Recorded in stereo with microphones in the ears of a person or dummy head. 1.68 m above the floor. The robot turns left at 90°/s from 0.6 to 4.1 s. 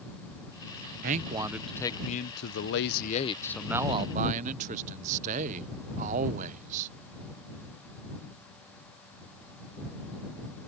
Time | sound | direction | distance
1.0 | a man speaking | 125° right | ?